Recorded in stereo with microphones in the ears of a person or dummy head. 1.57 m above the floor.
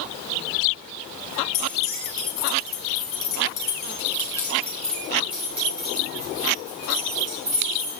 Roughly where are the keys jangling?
Left.